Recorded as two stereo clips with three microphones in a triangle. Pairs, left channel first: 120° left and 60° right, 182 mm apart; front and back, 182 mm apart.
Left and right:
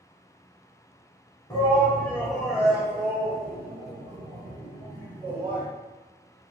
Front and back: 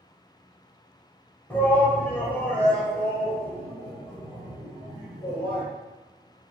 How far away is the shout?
About 1.2 m.